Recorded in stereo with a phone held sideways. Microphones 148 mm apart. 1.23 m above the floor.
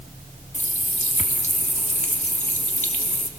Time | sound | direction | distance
0.5 | a running tap | 55° left (ahead or behind) | 1.4 m